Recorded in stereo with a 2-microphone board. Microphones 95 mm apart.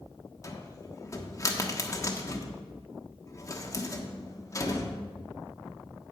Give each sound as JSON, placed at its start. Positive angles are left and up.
{"t": 0.4, "sound": "a cupboard door", "side_deg": 30, "distance_m": 1.2}